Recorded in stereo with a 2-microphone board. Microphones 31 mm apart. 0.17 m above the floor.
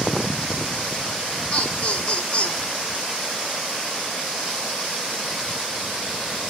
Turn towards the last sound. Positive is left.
turn(degrees=45)  # may be behind; listen again after turning